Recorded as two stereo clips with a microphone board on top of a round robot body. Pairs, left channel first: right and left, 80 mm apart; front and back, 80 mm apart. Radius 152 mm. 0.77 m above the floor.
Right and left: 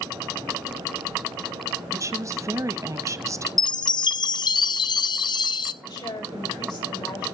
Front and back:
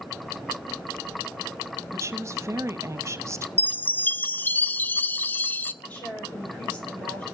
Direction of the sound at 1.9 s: 130° left.